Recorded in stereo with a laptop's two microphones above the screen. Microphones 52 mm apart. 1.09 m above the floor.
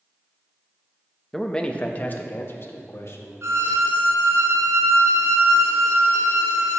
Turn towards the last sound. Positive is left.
turn(degrees=-65)  # may be behind; listen again after turning